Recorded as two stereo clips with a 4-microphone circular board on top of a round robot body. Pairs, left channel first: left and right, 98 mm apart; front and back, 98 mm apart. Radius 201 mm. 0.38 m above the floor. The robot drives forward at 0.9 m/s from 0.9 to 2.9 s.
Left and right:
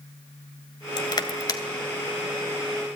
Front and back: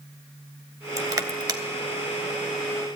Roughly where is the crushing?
Behind left.